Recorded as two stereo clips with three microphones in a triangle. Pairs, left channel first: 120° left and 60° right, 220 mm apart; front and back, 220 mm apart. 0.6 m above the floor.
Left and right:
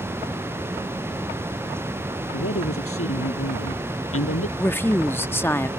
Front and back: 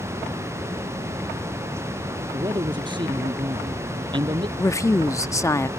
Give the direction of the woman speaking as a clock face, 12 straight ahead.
10 o'clock.